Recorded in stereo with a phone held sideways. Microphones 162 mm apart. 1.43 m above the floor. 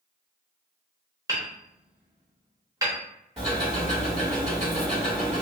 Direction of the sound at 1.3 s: 20° right (ahead or behind).